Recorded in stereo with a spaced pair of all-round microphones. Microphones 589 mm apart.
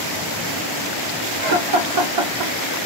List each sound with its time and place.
1.4 s laughter: 65° right (ahead or behind), 1.0 m; by 2.8 s 35° right (ahead or behind), 0.7 m